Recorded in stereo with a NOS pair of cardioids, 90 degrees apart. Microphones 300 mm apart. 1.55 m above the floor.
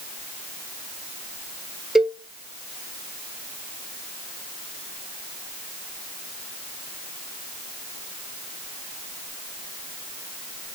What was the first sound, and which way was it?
A cowbell, straight ahead.